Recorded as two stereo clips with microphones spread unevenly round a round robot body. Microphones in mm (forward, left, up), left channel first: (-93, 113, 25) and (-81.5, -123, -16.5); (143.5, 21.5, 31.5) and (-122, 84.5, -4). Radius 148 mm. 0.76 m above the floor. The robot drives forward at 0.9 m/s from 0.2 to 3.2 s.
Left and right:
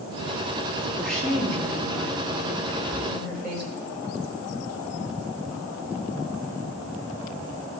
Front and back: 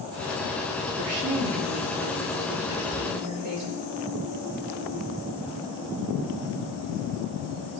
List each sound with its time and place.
1.0 s a woman speaking: 175° right, 1.3 m; by 3.7 s straight behind, 3 m
2.7 s whispering: 155° right, 5.5 m